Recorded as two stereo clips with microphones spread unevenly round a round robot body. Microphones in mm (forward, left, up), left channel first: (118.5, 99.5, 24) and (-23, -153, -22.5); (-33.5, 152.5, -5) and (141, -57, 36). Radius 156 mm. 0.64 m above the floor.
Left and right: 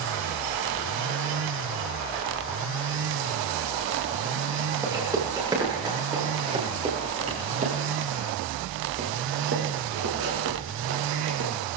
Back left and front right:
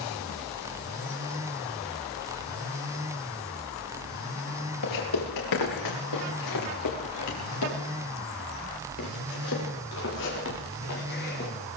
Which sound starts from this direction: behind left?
Footsteps, at 4.8 s.